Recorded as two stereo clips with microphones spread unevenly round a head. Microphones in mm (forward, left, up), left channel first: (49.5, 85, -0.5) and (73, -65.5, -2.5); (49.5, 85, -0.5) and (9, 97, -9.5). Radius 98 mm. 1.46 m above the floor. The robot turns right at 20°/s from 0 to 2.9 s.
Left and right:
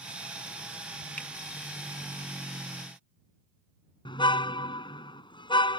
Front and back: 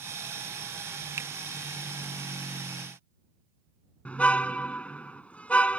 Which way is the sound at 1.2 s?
Straight behind.